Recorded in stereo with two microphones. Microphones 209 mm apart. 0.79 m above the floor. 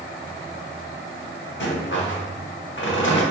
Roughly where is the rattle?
Left.